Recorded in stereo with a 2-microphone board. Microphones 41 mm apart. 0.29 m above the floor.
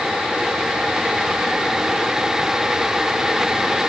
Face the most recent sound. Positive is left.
No sound to turn to.